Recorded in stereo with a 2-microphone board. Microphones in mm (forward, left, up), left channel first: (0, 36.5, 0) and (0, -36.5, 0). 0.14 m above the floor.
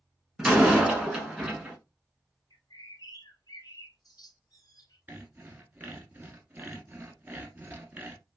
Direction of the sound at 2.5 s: 55° left (ahead or behind).